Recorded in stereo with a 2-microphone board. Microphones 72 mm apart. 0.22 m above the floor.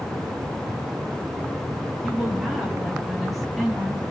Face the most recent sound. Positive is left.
turn(degrees=-5)  # may be behind; listen again after turning